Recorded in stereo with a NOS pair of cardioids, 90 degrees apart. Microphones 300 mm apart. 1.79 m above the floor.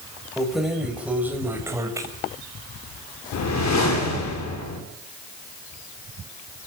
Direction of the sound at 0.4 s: Straight ahead.